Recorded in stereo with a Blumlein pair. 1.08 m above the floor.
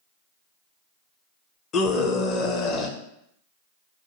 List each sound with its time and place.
1.7 s a scream: 30° left, 0.7 m